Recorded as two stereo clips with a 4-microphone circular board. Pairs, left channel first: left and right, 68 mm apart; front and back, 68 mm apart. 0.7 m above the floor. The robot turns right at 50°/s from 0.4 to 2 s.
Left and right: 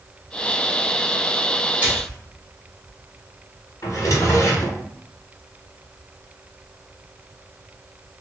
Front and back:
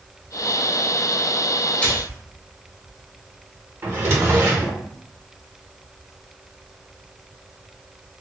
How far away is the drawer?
About 0.7 m.